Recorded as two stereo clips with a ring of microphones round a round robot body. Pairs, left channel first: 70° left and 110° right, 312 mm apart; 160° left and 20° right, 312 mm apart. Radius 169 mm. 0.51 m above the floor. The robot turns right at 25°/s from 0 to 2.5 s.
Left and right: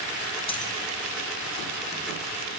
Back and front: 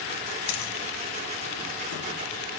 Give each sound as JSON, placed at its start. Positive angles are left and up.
{"t": 0.5, "sound": "a dropped coin", "azimuth_deg": 140, "distance_m": 2.0}